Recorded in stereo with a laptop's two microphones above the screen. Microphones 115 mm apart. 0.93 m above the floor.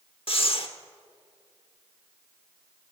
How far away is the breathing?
About 1.1 m.